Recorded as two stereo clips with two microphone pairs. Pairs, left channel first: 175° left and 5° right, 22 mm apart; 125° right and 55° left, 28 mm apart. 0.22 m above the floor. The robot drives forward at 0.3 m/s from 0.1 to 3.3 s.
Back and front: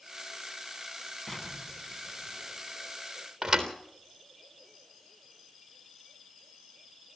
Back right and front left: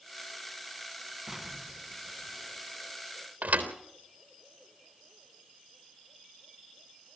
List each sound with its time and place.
1.3 s an explosion: 120° left, 2 m; by 2.9 s 135° left, 2.5 m
3.4 s a thud: 70° left, 3.5 m